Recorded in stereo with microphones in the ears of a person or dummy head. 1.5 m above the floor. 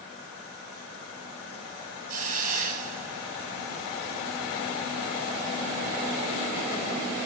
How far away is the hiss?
About 4.5 m.